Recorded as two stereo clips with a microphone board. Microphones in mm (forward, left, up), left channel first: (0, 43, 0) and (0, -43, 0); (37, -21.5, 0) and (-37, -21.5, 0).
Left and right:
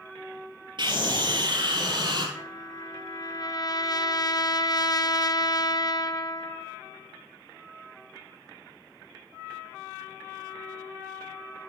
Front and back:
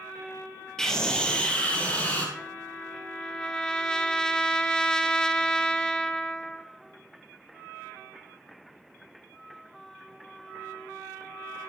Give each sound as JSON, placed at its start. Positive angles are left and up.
{"t": 0.8, "sound": "a scream", "azimuth_deg": -80, "distance_m": 4.0}
{"t": 2.4, "sound": "a trumpet", "azimuth_deg": 80, "distance_m": 1.0}